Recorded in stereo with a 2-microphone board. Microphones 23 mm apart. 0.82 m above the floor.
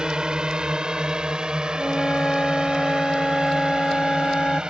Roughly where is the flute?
Left.